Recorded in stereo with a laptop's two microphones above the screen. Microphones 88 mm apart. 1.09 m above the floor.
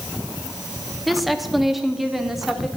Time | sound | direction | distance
1.1 | a woman speaking | centre (ahead or behind) | 1.7 m